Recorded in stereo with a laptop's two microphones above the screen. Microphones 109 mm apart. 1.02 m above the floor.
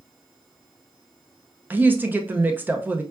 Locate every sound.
1.7 s a woman speaking: 15° right (ahead or behind), 0.5 m